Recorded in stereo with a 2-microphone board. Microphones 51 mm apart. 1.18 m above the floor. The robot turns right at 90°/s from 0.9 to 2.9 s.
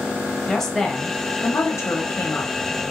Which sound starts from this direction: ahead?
A woman speaking, at 0.5 s.